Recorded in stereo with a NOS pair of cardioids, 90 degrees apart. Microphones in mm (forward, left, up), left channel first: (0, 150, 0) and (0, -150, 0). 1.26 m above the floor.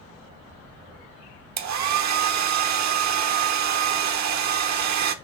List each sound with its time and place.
1.6 s a hair dryer: 65° right, 1.0 m